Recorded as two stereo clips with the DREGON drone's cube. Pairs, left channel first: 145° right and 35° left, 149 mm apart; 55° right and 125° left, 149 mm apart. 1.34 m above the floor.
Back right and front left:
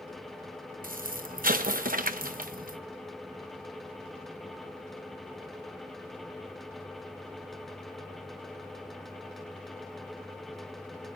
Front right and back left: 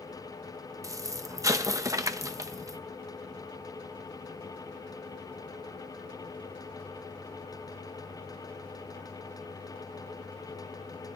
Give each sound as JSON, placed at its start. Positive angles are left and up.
{"t": 0.8, "sound": "an explosion", "azimuth_deg": 55, "distance_m": 0.9}